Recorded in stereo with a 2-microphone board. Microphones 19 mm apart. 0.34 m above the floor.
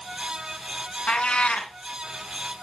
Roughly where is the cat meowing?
Left.